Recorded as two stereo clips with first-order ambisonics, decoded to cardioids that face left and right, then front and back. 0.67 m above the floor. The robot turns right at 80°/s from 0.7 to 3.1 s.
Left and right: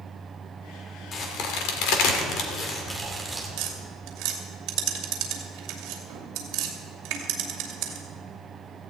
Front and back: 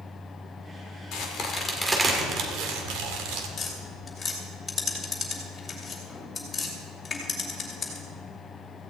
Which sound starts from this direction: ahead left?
A crack, at 1.1 s.